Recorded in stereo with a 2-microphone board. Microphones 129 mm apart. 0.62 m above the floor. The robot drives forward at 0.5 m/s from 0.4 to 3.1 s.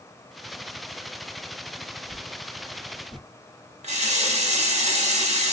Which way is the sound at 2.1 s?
40° right (ahead or behind).